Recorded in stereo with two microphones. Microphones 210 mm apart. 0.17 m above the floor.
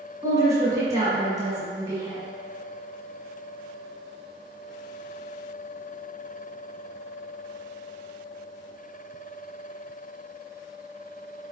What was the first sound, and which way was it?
A woman speaking, 15° right (ahead or behind).